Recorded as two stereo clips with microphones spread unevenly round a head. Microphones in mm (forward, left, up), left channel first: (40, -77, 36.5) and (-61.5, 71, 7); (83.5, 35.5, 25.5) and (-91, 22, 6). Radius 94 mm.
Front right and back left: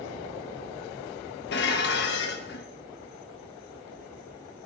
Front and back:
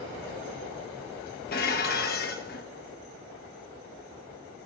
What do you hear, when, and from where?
1.5 s dishes clattering: 30° right, 1.1 m